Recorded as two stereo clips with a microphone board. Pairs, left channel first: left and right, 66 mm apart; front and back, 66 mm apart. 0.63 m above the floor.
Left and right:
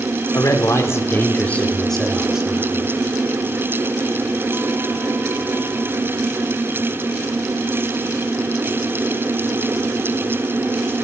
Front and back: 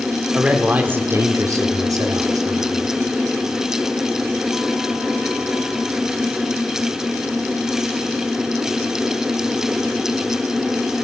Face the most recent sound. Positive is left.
turn(degrees=-160)